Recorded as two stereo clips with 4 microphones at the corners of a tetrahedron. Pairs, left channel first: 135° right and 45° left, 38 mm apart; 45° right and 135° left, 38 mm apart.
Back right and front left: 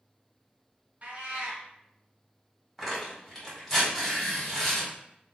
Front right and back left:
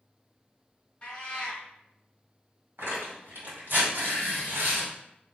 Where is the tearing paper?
130° left, 1.8 m.